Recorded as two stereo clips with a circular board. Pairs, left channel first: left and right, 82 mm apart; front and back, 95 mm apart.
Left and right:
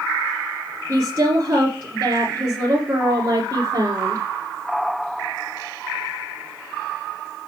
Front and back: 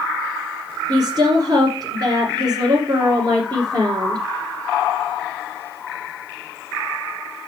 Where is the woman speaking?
145° right, 2.5 m.